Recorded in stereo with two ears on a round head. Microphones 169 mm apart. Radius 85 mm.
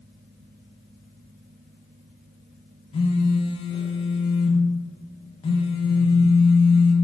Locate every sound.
2.9 s a phone buzzing: 30° left (ahead or behind), 0.6 m